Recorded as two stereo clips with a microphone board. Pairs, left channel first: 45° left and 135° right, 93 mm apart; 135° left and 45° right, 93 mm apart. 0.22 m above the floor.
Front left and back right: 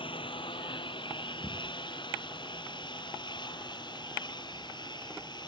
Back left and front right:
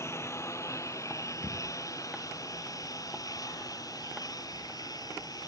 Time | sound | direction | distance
0.0 | a lawn mower | 75° left | ?